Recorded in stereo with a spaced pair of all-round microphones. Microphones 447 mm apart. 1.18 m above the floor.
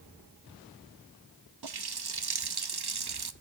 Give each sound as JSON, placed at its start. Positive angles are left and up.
{"t": 1.6, "sound": "a running tap", "side_deg": -60, "distance_m": 0.7}